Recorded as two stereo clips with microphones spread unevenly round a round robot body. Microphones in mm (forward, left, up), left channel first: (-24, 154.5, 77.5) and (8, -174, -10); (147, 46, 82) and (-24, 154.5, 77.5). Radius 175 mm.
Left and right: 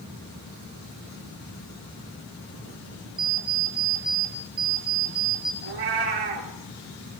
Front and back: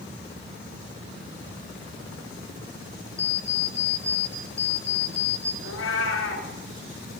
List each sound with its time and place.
3.2 s an alarm clock: 105° right, 5.5 m
5.6 s a cat meowing: 65° right, 4.5 m